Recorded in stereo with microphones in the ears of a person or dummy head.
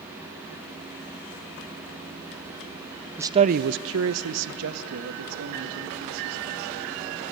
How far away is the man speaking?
About 0.6 m.